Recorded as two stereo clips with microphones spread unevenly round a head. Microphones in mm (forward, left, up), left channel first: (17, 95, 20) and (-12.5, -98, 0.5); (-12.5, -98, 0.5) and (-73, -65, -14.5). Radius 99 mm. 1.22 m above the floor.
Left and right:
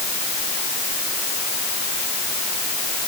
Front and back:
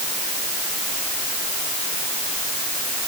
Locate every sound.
Only background noise.